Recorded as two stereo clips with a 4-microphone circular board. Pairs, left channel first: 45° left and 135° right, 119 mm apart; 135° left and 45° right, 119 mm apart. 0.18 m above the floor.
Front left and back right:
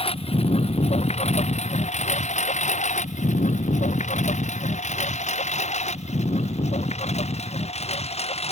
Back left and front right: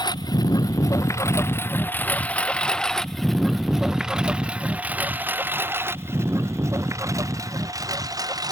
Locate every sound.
0.0 s a lawn mower: 80° left; by 8.5 s 15° left